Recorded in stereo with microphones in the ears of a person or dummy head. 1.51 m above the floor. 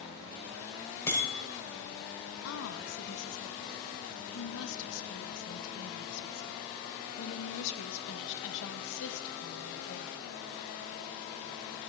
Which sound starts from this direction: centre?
A bicycle bell, at 1.1 s.